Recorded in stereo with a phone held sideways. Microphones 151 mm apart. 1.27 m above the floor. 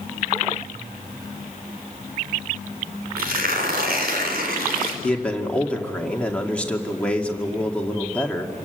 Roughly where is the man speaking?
Centre.